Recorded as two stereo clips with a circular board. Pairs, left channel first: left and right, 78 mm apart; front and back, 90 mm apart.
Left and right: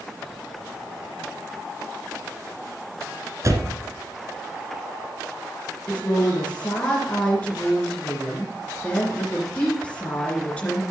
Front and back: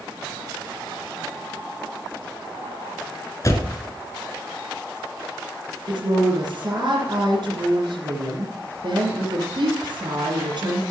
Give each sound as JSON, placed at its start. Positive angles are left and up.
{"t": 3.4, "sound": "a door slam", "azimuth_deg": -50, "distance_m": 1.5}
{"t": 5.9, "sound": "a woman speaking", "azimuth_deg": 165, "distance_m": 3.0}